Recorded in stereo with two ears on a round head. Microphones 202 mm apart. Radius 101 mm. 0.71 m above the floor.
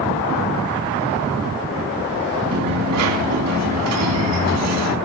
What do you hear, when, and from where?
2.5 s a dropped coin: 70° right (ahead or behind), 2.5 m